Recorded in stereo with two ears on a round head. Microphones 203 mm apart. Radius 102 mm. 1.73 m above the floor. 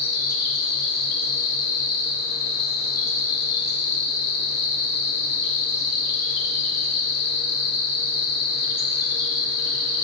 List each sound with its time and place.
0.0 s an insect: 45° left (ahead or behind), 1.2 m